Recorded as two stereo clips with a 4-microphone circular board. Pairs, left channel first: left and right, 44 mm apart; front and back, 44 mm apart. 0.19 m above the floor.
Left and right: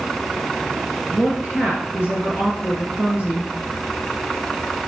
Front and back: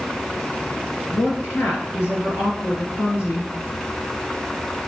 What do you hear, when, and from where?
1.1 s a woman speaking: 25° right, 3.5 m